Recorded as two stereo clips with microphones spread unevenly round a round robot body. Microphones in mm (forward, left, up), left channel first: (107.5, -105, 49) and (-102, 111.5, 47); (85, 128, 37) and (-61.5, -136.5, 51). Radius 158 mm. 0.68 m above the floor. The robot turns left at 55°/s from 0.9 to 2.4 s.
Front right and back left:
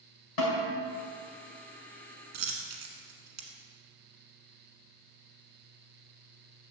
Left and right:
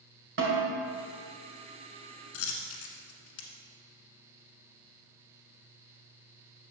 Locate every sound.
0.4 s a snare drum: 65° right, 2.5 m
2.3 s a dropped coin: 110° left, 1.2 m